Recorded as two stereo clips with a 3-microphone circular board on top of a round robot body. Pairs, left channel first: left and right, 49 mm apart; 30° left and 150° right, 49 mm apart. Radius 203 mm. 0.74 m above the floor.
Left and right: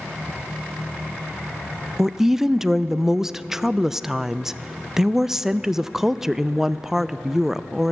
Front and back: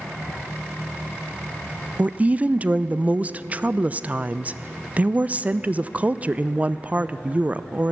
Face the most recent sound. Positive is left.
turn(degrees=-165)